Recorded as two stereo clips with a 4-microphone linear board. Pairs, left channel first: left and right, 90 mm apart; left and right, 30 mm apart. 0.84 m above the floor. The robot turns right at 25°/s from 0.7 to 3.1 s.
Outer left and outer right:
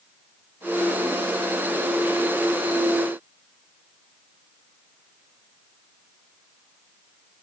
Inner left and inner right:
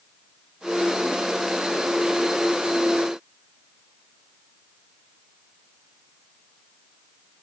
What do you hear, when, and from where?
Only background noise.